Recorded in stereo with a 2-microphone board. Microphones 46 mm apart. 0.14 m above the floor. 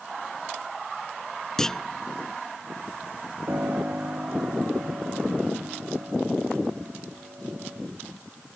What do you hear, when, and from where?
1.6 s a clunk: 10° left (ahead or behind)
3.5 s a piano: 50° right (ahead or behind)